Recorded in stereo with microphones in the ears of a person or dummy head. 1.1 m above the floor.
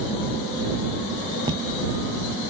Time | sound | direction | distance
1.5 | footsteps | 20° right (ahead or behind) | ?